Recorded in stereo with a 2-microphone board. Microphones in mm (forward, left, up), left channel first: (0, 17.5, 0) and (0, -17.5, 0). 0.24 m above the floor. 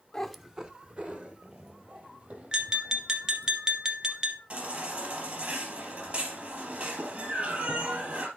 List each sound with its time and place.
0.1 s a cat meowing: 20° left (ahead or behind), 0.6 m; by 3.5 s 50° right (ahead or behind), 4.5 m
2.5 s tapping: 20° right (ahead or behind), 1.3 m
4.5 s a baby crying: 45° right (ahead or behind), 3 m